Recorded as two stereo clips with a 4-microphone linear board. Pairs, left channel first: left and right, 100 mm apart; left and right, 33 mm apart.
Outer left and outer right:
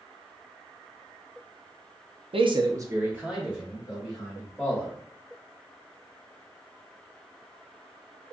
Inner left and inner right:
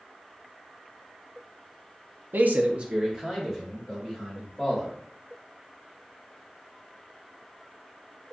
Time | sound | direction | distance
2.3 | a man speaking | 75° right (ahead or behind) | 0.5 m